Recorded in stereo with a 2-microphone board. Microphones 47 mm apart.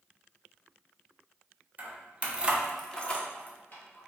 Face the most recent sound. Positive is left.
turn(degrees=50)  # may be behind; listen again after turning